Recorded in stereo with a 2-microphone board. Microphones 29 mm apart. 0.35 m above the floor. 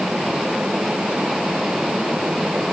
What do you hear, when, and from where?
Only background noise.